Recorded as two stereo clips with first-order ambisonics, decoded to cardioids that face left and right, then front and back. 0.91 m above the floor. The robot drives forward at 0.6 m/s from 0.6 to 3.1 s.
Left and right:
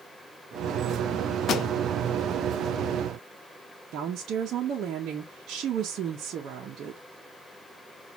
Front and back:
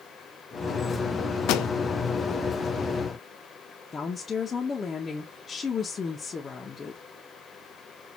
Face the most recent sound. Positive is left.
turn(degrees=-60)